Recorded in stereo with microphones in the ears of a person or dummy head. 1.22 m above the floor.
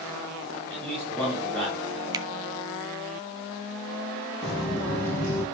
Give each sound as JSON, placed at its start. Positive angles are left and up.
{"t": 0.7, "sound": "a man speaking", "side_deg": 0, "distance_m": 7.5}
{"t": 2.1, "sound": "a finger snap", "side_deg": -25, "distance_m": 0.7}
{"t": 4.4, "sound": "footsteps", "side_deg": 5, "distance_m": 1.8}